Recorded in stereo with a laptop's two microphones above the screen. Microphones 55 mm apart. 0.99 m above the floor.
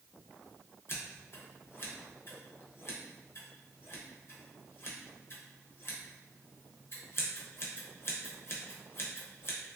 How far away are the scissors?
About 0.6 m.